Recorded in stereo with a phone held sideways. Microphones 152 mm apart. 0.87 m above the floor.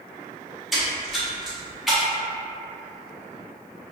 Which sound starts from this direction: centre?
A splash, at 0.7 s.